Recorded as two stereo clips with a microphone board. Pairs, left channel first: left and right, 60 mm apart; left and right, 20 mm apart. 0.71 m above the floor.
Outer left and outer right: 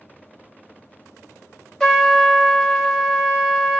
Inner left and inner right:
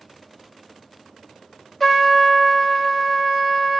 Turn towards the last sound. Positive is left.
turn(degrees=10)  # may be behind; listen again after turning